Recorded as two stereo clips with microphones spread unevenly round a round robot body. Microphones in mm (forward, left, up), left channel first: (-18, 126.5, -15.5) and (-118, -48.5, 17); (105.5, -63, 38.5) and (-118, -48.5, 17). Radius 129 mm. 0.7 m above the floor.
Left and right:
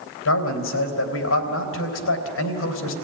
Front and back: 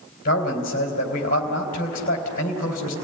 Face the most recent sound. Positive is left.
turn(degrees=55)